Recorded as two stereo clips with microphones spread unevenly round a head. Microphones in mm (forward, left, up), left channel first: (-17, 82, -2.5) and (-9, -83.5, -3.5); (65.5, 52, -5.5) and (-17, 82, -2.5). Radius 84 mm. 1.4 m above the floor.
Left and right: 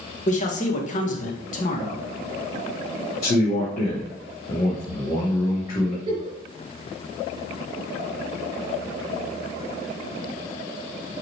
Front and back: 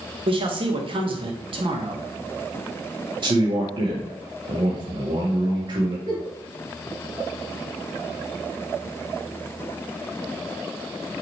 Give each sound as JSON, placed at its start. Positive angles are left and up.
{"t": 0.3, "sound": "a man speaking", "azimuth_deg": 140, "distance_m": 1.6}
{"t": 3.2, "sound": "a man speaking", "azimuth_deg": 140, "distance_m": 2.0}
{"t": 6.1, "sound": "a giggle", "azimuth_deg": -150, "distance_m": 3.5}